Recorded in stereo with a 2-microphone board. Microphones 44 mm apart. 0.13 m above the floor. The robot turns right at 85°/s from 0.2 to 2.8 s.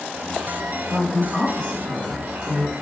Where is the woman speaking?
60° right, 3.5 m; by 2.7 s 95° left, 3.5 m.